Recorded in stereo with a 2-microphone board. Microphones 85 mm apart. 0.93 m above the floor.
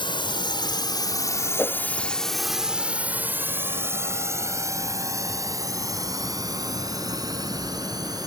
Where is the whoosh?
25° left (ahead or behind).